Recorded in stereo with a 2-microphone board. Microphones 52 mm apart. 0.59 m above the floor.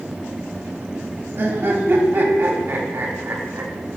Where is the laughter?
45° right (ahead or behind), 1.1 m.